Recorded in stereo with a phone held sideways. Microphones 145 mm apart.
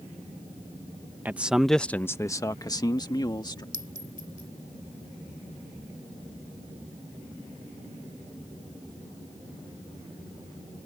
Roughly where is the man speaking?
Centre.